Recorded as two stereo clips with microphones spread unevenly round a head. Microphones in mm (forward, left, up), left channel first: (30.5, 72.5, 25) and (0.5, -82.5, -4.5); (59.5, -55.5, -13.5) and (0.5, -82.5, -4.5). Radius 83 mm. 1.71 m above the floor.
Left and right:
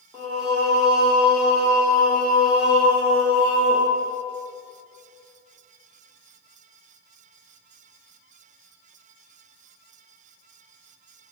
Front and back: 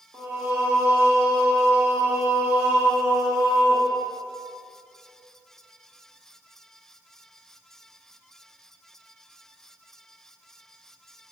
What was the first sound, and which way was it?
Singing, 165° left.